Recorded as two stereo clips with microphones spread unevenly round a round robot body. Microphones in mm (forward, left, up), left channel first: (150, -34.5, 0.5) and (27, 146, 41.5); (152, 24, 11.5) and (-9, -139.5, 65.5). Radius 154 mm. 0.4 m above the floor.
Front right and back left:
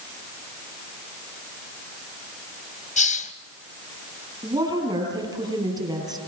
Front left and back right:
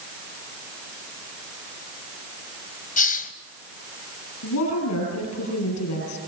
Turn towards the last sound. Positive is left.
turn(degrees=55)